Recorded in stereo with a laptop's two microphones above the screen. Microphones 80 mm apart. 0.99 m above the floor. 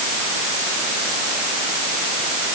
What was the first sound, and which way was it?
Only background noise.